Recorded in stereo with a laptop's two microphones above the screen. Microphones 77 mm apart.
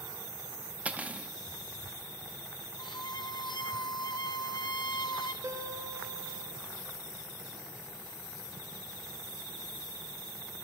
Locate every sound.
0.8 s cutlery clinking: 20° right (ahead or behind), 0.5 m
2.8 s a violin: 75° left (ahead or behind), 0.6 m
5.4 s a guitar: 55° right (ahead or behind), 0.8 m